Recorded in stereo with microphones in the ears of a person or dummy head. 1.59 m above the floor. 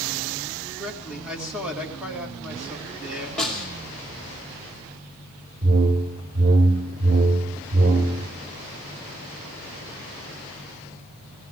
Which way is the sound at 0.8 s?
5° right (ahead or behind).